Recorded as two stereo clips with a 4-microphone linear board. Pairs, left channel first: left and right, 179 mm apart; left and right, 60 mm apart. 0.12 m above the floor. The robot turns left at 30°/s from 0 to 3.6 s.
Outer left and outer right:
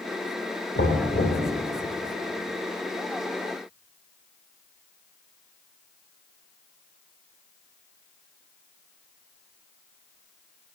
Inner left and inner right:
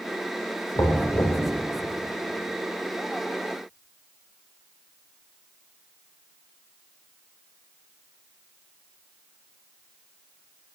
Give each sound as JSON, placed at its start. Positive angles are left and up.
{"t": 0.8, "sound": "knocking", "side_deg": 70, "distance_m": 3.0}